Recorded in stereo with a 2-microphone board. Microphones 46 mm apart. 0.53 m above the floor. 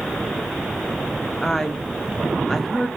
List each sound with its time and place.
1.4 s a woman speaking: 5° left (ahead or behind), 0.7 m